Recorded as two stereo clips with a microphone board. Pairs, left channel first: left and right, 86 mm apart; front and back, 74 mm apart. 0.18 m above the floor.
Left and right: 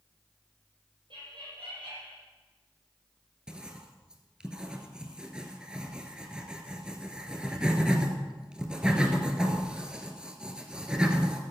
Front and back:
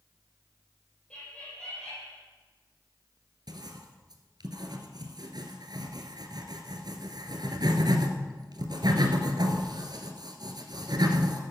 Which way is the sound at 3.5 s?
170° right.